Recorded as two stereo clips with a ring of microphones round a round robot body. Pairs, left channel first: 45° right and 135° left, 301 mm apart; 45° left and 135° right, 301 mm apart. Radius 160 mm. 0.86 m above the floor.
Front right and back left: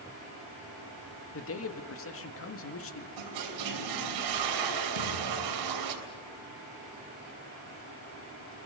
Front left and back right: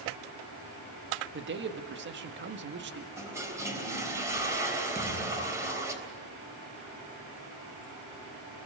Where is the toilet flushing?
145° left, 3 m.